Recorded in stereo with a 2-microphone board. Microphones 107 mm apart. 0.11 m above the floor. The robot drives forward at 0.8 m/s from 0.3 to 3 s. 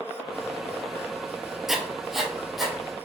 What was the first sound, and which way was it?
Writing, 5° right (ahead or behind).